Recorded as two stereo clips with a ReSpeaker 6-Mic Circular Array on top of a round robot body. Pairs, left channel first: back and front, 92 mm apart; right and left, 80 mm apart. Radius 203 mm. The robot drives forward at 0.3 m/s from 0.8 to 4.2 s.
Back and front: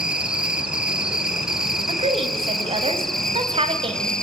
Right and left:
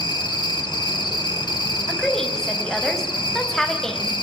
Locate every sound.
0.0 s an insect: 80° right, 3.5 m; by 4.2 s 100° right, 3.5 m
1.9 s a woman speaking: 5° right, 4.5 m